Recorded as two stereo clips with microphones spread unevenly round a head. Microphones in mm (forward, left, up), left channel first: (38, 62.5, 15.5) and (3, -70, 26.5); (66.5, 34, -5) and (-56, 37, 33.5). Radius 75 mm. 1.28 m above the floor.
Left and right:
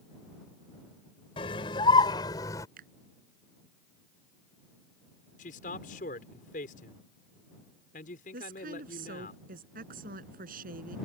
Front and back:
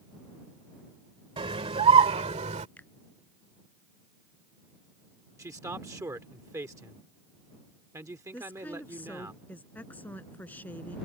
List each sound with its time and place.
1.4 s a scream: 135° left; by 2.7 s 145° left
2.8 s a finger snap: 85° right
5.4 s a man speaking: 115° left
8.3 s a woman speaking: 80° right